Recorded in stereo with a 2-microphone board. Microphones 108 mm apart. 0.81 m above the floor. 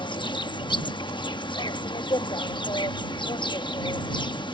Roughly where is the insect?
Left.